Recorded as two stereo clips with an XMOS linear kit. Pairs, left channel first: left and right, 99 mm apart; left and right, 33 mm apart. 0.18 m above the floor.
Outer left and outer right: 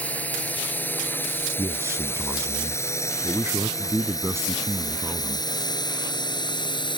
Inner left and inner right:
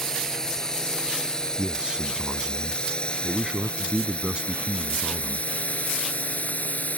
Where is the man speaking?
30° right (ahead or behind).